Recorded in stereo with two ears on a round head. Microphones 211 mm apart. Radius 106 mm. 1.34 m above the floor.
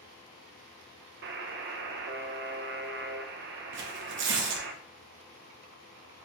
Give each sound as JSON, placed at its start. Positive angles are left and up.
{"t": 1.2, "sound": "a buzzer", "side_deg": -45, "distance_m": 0.5}
{"t": 3.7, "sound": "tearing paper", "side_deg": -50, "distance_m": 0.8}